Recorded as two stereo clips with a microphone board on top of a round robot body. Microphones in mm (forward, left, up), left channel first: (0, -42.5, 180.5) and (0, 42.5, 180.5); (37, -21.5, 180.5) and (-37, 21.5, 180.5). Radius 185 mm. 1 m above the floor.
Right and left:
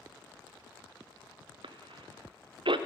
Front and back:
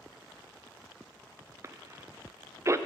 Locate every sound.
1.6 s a cough: 95° left, 0.5 m